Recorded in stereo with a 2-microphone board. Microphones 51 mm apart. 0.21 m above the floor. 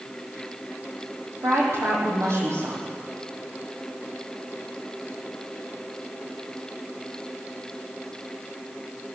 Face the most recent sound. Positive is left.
turn(degrees=-60)  # may be behind; listen again after turning